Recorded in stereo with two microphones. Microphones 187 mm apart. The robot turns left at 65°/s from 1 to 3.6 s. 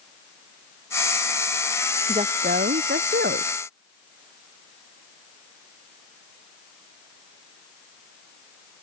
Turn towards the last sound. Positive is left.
turn(degrees=-130)